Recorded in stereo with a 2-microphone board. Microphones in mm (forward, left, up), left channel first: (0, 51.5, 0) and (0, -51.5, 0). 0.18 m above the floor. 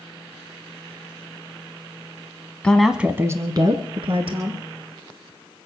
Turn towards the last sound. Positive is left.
turn(degrees=-65)  # may be behind; listen again after turning